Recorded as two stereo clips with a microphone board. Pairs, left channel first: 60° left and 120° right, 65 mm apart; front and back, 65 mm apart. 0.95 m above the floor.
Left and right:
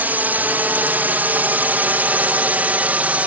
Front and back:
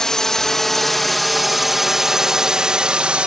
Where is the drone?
75° right; by 3.3 s 135° right.